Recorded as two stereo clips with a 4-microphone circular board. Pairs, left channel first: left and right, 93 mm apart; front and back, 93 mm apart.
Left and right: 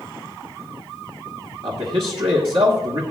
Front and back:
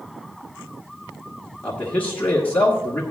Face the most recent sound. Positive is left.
turn(degrees=-70)